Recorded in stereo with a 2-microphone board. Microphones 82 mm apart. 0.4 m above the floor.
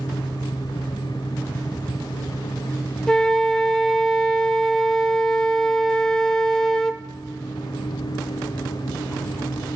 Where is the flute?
10° left (ahead or behind), 0.5 m.